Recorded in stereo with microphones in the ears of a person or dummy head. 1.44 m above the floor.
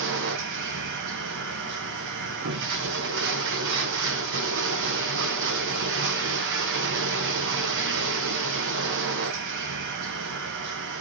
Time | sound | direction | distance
0.0 | running water | 60° right (ahead or behind) | 0.8 m